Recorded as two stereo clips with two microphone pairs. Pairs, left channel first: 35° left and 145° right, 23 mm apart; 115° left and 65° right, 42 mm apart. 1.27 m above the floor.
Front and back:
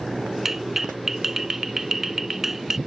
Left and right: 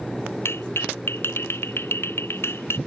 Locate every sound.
0.5 s a clap: 135° left